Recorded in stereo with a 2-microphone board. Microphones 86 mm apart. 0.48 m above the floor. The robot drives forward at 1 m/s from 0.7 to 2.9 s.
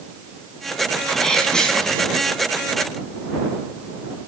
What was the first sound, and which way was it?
A sneeze, 5° left (ahead or behind).